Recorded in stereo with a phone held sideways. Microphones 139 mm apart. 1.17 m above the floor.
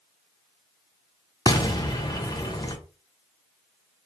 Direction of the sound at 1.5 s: 30° left (ahead or behind).